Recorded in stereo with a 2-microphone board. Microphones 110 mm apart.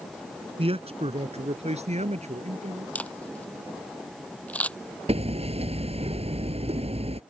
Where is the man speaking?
55° right (ahead or behind); by 2.9 s 75° right (ahead or behind).